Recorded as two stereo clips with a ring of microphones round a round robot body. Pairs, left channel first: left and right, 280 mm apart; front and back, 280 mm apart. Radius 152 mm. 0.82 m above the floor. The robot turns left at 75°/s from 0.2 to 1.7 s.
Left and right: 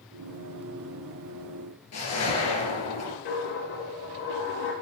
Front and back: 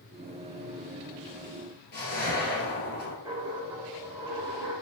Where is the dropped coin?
100° left, 4.5 m.